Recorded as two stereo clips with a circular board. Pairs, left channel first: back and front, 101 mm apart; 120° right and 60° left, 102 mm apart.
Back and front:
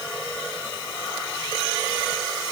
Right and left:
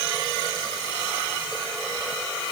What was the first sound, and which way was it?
Only background noise.